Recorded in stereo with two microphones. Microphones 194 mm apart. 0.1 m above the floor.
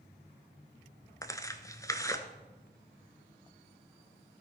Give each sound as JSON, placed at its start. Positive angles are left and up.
{"t": 1.2, "sound": "tearing paper", "side_deg": 15, "distance_m": 0.7}